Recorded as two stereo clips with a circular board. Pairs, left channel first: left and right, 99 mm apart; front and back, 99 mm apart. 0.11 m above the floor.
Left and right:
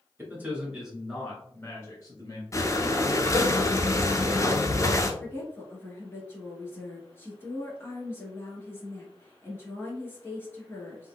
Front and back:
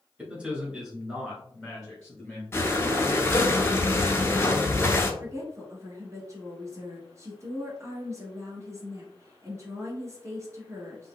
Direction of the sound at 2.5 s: 55° left.